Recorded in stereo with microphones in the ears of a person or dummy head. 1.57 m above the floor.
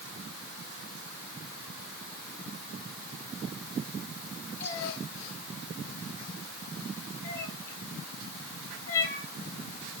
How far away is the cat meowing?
About 7.5 m.